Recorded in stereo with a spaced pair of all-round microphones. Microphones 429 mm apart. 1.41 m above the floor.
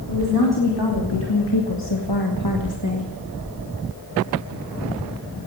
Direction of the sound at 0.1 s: 60° left (ahead or behind).